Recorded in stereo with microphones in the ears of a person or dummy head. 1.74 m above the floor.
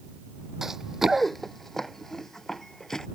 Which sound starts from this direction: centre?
Running footsteps, at 0.6 s.